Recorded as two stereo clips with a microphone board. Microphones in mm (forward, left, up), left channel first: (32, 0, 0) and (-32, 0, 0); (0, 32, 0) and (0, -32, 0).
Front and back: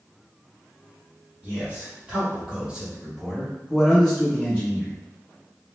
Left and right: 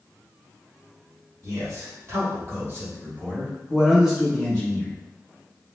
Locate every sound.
1.4 s a man speaking: 115° right, 1.8 m; by 4.9 s 50° left, 1.1 m